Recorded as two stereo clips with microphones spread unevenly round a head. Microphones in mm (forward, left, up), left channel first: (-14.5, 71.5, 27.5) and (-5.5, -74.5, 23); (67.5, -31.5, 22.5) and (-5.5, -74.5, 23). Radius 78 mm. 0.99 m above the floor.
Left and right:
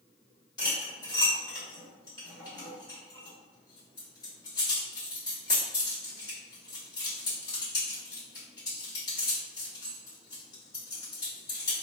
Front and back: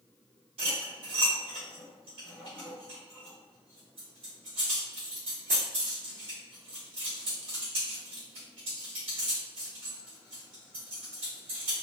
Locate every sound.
0.6 s cutlery clinking: 160° left, 1.6 m